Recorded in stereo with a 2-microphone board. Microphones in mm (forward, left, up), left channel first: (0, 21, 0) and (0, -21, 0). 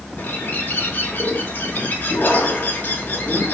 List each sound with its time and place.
0.2 s a bird: 45° left (ahead or behind), 2.5 m